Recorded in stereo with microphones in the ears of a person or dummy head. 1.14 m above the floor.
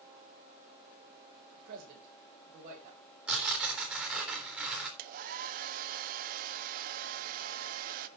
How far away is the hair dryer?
About 0.9 m.